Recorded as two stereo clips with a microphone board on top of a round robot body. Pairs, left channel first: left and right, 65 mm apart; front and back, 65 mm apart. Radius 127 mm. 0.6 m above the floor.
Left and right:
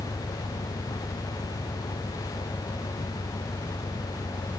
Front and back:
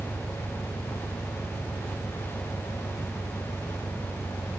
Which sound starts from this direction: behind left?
An engine running, at 0.0 s.